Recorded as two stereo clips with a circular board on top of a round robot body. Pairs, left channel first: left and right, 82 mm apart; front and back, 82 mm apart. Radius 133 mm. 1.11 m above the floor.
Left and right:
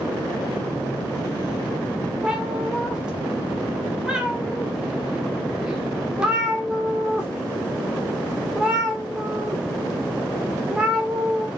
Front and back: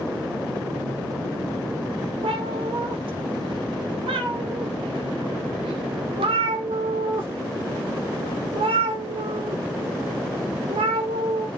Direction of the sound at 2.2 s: 170° right.